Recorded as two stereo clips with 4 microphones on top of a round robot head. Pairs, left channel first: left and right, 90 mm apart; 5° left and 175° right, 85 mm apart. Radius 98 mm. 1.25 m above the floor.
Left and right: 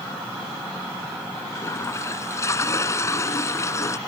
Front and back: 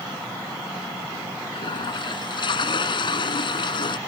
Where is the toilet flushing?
30° left.